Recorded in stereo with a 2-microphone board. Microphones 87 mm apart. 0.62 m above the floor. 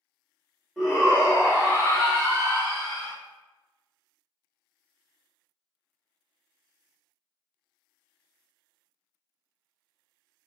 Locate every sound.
0.8 s a shout: 5° right (ahead or behind), 0.9 m; by 3.1 s 35° right (ahead or behind), 1.5 m